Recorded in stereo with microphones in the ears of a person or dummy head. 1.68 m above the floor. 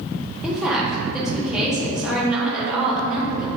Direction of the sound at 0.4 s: 5° right (ahead or behind).